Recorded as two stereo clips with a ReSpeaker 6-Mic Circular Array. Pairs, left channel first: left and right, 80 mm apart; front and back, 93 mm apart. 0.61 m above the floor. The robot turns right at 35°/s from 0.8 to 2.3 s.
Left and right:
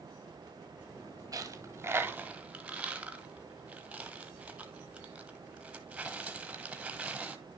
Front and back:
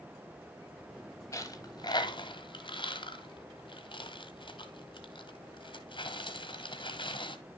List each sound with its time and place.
1.3 s a dropped coin: 50° right, 1.1 m; by 7.4 s 15° right, 1.1 m